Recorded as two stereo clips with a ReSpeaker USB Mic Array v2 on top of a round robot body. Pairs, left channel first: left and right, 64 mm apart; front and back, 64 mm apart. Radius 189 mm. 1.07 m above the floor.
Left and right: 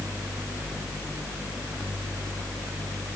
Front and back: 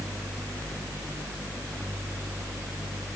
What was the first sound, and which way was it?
Only background noise.